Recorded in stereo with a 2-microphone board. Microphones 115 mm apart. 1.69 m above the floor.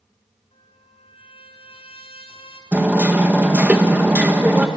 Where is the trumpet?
55° left (ahead or behind), 3 m.